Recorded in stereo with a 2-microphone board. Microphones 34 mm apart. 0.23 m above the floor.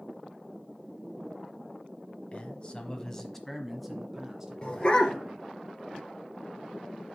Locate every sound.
2.3 s a man speaking: 40° left (ahead or behind), 1.2 m; by 5.5 s 25° right (ahead or behind), 2.5 m
4.6 s a dog barking: 30° left (ahead or behind), 1.6 m